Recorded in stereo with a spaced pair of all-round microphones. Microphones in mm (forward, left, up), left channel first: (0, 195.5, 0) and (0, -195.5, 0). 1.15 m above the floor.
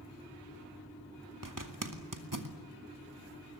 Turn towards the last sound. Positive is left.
turn(degrees=-55)  # may be behind; listen again after turning